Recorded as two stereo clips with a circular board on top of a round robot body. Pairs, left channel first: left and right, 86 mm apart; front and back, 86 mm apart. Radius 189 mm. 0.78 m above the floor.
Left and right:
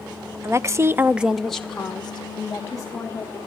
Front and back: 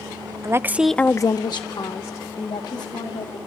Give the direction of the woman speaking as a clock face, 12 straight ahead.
5 o'clock.